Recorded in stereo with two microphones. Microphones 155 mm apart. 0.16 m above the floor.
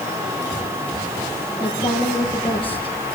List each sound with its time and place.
1.6 s a woman speaking: 30° left (ahead or behind), 5 m